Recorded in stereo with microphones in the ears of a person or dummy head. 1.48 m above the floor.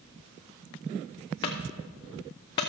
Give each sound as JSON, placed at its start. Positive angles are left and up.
{"t": 1.4, "sound": "a clunk", "side_deg": 15, "distance_m": 0.6}